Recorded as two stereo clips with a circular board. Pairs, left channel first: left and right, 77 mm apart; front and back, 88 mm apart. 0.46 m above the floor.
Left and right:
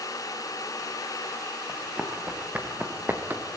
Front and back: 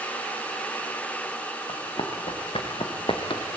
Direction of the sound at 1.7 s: 15° right.